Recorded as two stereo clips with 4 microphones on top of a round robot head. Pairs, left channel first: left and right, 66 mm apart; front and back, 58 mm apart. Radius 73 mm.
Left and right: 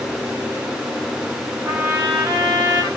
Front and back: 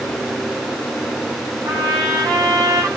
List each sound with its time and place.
1.6 s a trumpet: 165° right, 8 m